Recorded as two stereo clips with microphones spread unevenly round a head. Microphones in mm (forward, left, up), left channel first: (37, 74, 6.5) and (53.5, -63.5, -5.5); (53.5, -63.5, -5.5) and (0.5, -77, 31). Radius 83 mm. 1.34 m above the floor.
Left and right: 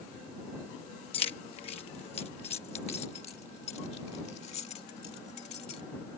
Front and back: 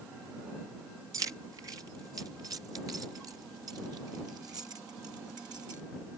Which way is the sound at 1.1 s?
155° left.